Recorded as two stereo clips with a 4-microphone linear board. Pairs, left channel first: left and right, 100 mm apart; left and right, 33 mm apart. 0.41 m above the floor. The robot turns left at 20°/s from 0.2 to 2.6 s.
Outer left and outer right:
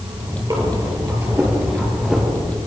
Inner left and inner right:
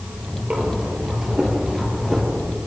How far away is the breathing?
About 3.5 m.